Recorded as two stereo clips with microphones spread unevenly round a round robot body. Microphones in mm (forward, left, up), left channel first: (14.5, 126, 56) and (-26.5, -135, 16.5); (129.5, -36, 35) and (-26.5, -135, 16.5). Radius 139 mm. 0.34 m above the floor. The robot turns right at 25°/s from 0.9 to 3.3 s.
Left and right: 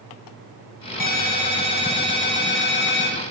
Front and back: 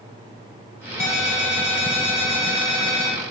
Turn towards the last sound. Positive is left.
turn(degrees=100)